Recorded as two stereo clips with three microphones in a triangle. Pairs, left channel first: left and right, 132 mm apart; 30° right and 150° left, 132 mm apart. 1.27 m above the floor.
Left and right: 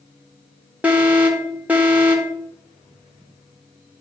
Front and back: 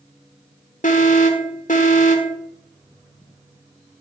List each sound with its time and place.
0.8 s an alarm: 10° right, 1.2 m